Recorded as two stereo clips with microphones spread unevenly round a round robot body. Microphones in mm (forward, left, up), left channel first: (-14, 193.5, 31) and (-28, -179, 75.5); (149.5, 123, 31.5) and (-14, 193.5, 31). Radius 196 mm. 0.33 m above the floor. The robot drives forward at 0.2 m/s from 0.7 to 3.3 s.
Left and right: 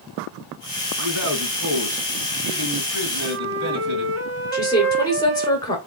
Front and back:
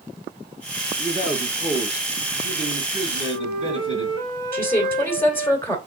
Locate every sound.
1.0 s a man speaking: 130° right, 2.0 m; by 4.2 s 140° right, 2.5 m
3.2 s a flute: 145° right, 0.9 m
4.5 s a woman speaking: 40° left, 1.6 m